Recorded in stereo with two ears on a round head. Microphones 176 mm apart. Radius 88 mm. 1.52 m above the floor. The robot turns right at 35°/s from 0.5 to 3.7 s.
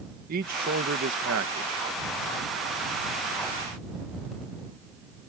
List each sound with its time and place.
0.3 s a man speaking: 130° right; by 1.9 s 85° right